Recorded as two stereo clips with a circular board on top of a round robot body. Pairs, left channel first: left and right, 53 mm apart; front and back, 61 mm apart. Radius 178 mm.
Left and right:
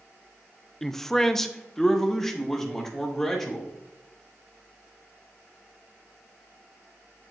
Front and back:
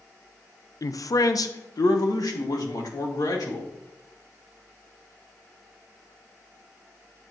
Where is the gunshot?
I don't hear a gunshot.